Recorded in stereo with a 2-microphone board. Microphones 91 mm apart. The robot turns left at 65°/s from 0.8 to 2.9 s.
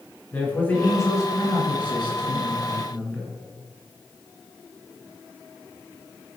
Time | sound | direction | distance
0.3 | a man speaking | 160° left | 2 m